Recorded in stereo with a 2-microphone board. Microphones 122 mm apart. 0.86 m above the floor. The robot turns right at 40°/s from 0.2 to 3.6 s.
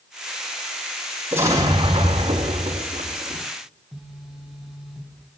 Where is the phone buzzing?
5° right (ahead or behind), 2.5 m.